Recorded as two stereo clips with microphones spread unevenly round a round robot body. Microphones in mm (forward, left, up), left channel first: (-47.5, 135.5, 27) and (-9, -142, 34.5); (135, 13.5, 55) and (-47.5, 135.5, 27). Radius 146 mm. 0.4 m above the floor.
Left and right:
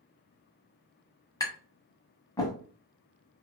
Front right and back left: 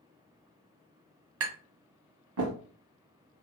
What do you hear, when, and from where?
1.4 s tapping: 175° left, 1.1 m